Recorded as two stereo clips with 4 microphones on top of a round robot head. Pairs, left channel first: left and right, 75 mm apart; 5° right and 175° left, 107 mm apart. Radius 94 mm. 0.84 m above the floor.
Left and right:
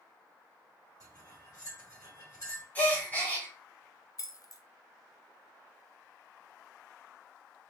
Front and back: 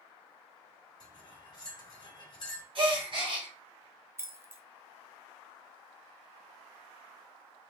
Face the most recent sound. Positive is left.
turn(degrees=115)